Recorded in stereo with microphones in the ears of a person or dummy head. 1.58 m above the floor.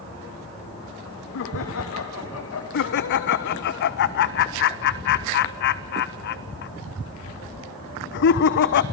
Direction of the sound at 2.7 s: 60° left (ahead or behind).